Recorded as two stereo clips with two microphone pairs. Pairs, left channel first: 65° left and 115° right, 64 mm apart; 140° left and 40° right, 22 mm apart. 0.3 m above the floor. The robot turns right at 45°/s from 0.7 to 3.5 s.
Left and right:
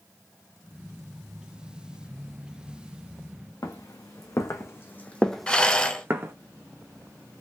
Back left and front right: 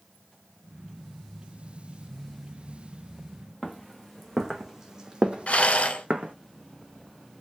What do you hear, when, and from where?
3.6 s footsteps: 50° left, 1.2 m; by 6.3 s 70° right, 0.8 m
5.5 s a rattle: 140° left, 0.6 m